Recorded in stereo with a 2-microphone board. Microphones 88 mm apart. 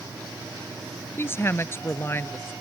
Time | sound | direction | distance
1.2 | a woman speaking | 30° left (ahead or behind) | ?